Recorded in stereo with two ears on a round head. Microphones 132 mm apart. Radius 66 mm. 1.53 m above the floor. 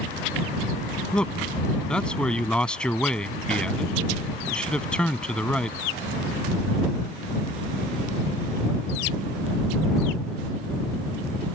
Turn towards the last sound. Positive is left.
turn(degrees=5)  # may be behind; listen again after turning